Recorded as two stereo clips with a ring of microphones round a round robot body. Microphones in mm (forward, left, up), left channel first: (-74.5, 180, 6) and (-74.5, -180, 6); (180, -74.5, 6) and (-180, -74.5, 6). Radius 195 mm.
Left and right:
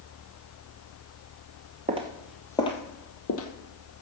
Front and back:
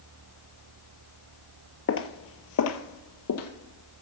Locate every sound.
1.9 s footsteps: 30° right, 0.9 m; by 3.5 s 45° left, 1.2 m